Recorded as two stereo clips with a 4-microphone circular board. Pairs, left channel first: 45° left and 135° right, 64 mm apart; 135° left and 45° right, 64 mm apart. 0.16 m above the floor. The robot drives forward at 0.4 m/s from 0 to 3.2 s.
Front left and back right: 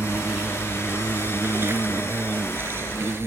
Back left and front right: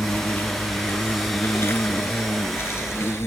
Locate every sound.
0.0 s an insect: straight behind